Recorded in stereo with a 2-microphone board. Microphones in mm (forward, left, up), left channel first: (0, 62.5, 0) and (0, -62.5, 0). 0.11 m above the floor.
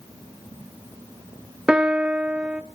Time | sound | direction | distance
1.7 | a piano | 10° right (ahead or behind) | 0.6 m